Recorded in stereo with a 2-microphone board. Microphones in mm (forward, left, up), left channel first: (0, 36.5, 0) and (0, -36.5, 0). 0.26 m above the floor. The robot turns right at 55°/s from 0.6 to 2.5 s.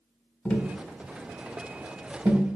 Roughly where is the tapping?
Centre.